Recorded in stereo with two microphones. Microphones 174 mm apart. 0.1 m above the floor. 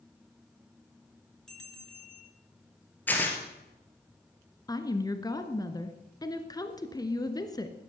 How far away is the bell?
About 0.8 m.